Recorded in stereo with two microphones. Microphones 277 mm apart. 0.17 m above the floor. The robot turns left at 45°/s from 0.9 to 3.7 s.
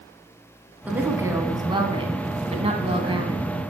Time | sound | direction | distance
0.9 | a woman speaking | 5° right (ahead or behind) | 1.1 m